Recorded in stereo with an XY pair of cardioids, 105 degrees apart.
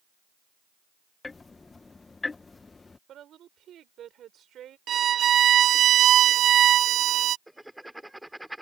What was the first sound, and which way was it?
Ticking, 25° left.